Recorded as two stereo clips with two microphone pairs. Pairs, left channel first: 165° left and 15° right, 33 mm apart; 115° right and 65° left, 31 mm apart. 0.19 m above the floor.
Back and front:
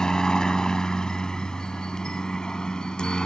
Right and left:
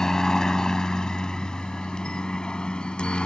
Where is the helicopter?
160° right; by 3.3 s 145° right.